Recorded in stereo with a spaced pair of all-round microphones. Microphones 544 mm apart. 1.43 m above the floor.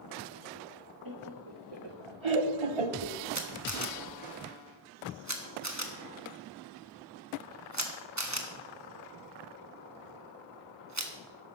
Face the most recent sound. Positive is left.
turn(degrees=-30)  # may be behind; listen again after turning